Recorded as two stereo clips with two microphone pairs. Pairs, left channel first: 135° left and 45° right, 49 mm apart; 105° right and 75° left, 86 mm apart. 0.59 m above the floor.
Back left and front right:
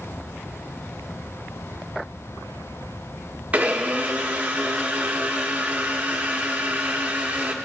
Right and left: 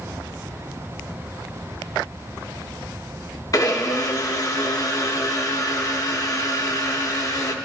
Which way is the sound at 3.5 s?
90° right.